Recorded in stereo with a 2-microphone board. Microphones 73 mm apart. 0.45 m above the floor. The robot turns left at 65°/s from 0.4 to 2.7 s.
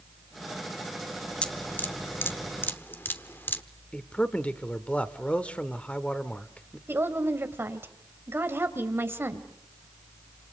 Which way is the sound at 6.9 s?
35° right (ahead or behind).